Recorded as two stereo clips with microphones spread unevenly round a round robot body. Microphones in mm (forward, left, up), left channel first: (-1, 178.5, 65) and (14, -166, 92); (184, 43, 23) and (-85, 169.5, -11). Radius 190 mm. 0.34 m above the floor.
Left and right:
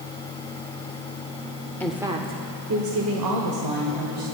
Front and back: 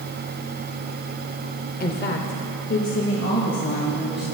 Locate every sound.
1.8 s a woman speaking: 20° left, 1.2 m; by 4.2 s 90° right, 2.5 m